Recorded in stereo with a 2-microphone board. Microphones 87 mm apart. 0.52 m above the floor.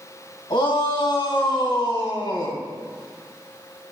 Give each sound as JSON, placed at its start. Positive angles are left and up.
{"t": 0.5, "sound": "a shout", "side_deg": 75, "distance_m": 3.0}